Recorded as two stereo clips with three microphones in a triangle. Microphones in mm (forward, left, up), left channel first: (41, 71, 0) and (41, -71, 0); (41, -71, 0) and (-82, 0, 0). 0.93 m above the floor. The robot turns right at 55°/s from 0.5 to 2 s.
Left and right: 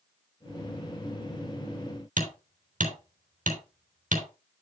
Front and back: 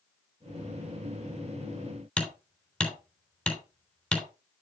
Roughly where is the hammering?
Behind right.